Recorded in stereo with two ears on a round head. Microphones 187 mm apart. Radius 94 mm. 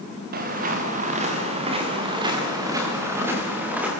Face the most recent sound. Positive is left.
turn(degrees=-5)  # may be behind; listen again after turning